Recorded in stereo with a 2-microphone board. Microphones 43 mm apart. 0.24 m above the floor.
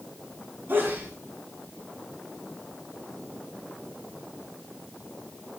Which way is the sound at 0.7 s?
55° right (ahead or behind).